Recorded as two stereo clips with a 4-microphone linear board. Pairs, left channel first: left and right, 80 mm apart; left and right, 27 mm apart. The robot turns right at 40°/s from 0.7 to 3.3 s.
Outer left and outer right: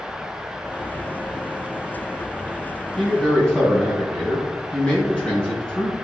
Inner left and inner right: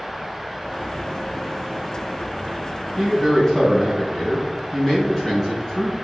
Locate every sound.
3.0 s a man speaking: centre (ahead or behind), 4 m; by 5.9 s 15° left (ahead or behind), 4 m